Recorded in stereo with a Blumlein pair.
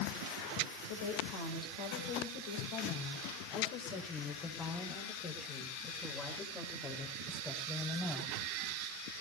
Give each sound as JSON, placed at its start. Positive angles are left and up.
{"t": 0.9, "sound": "a woman speaking", "azimuth_deg": 55, "distance_m": 5.0}